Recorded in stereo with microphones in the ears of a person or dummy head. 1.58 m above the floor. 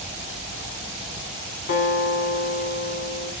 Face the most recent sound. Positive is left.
turn(degrees=55)  # may be behind; listen again after turning